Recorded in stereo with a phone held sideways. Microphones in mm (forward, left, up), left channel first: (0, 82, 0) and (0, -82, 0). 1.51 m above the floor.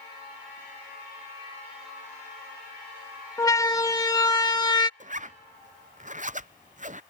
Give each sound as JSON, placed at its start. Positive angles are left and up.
{"t": 3.4, "sound": "a siren", "side_deg": 20}
{"t": 5.0, "sound": "a zipper", "side_deg": -50}